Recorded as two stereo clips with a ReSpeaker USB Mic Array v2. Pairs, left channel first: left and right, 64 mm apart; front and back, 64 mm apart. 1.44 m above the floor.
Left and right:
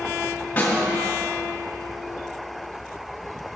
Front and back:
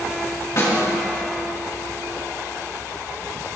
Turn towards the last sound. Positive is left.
turn(degrees=25)